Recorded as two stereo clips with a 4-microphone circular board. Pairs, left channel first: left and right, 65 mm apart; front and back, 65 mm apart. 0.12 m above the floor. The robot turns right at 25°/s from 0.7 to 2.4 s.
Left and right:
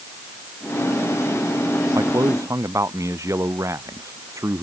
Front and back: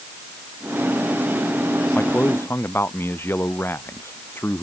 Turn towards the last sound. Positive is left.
turn(degrees=-55)